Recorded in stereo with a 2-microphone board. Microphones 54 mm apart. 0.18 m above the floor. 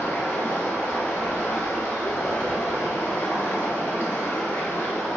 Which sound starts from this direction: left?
Running water, at 0.0 s.